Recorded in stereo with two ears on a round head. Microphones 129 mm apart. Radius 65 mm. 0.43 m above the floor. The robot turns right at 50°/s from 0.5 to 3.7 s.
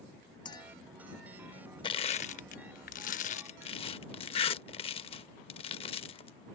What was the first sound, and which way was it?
A clink, 35° left (ahead or behind).